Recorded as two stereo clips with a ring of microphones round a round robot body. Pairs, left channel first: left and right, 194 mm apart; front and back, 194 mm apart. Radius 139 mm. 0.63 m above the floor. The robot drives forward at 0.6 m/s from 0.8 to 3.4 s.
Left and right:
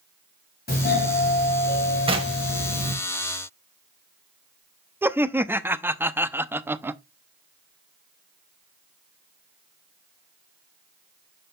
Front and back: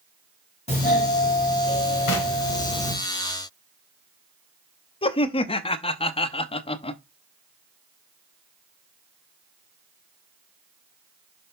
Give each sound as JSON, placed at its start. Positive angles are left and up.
{"t": 0.7, "sound": "a doorbell", "azimuth_deg": 55, "distance_m": 5.0}
{"t": 2.1, "sound": "knocking", "azimuth_deg": -25, "distance_m": 1.9}
{"t": 5.0, "sound": "laughter", "azimuth_deg": -20, "distance_m": 0.7}